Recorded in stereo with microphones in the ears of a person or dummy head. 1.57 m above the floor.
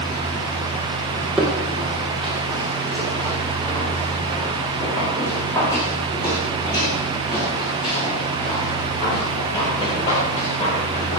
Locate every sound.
1.4 s footsteps: centre (ahead or behind), 4.5 m; by 11.2 s 35° left (ahead or behind), 8 m